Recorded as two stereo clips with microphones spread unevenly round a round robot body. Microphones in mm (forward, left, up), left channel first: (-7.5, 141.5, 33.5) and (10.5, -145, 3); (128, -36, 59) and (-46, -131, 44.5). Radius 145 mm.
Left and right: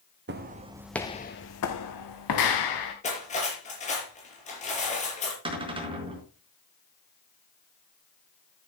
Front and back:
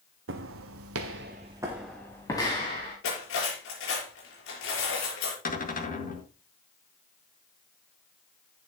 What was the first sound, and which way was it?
Footsteps, 140° right.